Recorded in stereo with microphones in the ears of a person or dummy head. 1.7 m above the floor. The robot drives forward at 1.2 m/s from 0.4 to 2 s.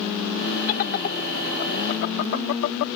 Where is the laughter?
50° left (ahead or behind); by 2.9 s 65° left (ahead or behind).